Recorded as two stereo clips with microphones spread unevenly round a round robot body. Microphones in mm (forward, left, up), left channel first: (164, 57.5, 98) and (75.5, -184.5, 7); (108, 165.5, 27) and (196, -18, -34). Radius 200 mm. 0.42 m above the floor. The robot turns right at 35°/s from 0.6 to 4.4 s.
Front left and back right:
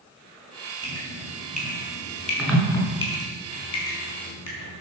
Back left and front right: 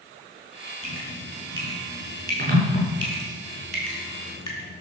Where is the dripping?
80° right, 5 m; by 4.8 s 45° left, 5 m.